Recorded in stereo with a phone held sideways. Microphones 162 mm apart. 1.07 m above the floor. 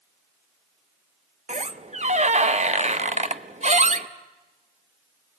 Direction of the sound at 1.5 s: 45° right (ahead or behind).